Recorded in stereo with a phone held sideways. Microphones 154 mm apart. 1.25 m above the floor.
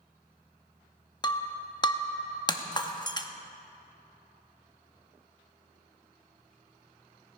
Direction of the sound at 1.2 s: 30° left (ahead or behind).